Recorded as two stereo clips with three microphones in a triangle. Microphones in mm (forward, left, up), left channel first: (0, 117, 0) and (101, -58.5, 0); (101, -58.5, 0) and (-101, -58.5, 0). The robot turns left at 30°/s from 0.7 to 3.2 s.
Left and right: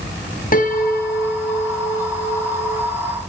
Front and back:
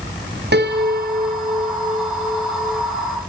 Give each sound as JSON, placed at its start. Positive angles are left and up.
{"t": 0.5, "sound": "a piano", "azimuth_deg": 160, "distance_m": 1.8}